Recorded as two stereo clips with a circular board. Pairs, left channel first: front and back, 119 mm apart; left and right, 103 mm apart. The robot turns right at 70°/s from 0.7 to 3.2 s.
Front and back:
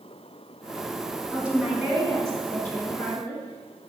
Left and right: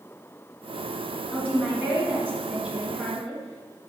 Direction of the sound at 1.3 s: 130° right.